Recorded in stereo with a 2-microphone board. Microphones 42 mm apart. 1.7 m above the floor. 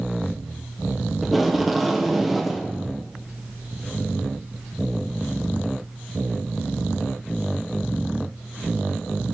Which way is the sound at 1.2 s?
Centre (ahead or behind).